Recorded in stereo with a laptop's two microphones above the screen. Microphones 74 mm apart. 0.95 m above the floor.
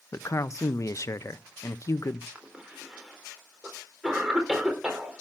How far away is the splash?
No splash in this recording.